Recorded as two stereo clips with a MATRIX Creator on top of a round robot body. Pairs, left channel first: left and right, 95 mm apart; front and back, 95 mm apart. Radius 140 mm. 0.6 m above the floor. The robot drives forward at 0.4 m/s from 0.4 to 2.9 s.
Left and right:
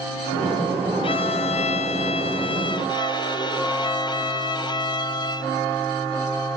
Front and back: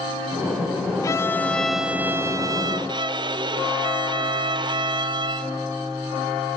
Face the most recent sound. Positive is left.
turn(degrees=140)